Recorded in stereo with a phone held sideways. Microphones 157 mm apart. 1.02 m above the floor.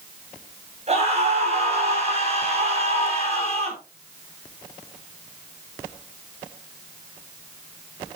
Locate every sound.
0.9 s a scream: 40° right (ahead or behind), 8.5 m